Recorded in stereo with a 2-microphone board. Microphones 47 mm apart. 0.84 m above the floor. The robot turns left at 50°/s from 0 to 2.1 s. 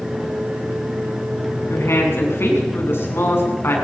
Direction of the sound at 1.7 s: 75° left (ahead or behind).